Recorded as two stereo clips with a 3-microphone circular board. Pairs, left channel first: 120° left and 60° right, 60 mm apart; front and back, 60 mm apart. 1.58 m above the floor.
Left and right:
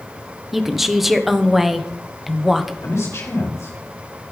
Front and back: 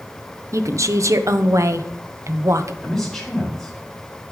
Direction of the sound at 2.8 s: 80° left.